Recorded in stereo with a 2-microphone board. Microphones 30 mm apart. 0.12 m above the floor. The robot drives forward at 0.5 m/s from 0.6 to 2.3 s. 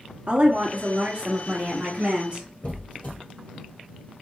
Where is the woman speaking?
45° right (ahead or behind), 1.7 m; by 2.5 s 35° right (ahead or behind), 2 m.